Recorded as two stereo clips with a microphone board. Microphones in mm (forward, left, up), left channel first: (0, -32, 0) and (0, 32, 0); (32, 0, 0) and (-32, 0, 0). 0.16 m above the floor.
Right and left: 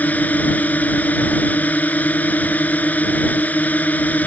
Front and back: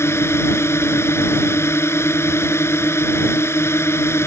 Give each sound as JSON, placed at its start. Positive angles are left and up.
{"t": 0.0, "sound": "a drone", "azimuth_deg": -30}